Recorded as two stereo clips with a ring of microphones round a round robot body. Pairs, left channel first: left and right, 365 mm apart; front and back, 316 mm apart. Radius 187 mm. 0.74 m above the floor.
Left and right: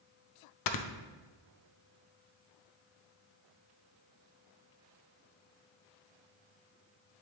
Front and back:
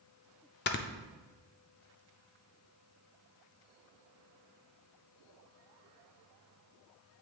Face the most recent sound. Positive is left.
turn(degrees=55)